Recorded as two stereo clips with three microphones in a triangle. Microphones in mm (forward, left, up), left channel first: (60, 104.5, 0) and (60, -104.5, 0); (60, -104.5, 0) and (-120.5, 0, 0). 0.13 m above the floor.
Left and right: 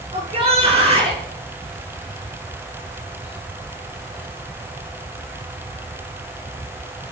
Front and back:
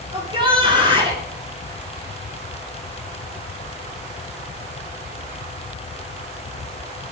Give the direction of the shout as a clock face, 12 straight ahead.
5 o'clock.